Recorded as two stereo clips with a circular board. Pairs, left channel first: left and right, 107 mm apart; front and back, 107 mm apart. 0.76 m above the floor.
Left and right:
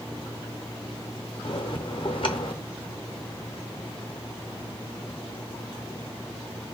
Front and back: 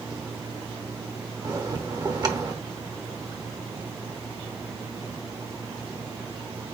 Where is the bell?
130° left, 0.7 m.